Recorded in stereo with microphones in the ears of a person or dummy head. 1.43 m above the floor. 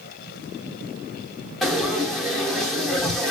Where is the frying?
5° left (ahead or behind), 1.2 m.